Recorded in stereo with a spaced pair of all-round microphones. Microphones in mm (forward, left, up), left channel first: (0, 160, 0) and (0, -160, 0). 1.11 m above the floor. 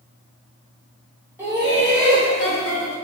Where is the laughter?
5° right (ahead or behind), 1.3 m; by 3.0 s 70° right (ahead or behind), 1.2 m.